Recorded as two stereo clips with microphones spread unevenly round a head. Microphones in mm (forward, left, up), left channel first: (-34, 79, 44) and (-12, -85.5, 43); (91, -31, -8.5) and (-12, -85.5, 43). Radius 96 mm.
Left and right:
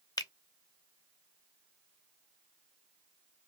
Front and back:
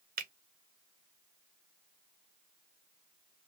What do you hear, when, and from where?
0.2 s a finger snap: 165° left, 0.7 m